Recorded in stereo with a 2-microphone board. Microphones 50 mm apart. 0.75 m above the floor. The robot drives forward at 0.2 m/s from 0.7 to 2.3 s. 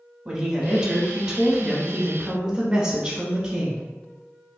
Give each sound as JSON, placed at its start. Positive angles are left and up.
{"t": 0.2, "sound": "a woman speaking", "side_deg": -10, "distance_m": 1.0}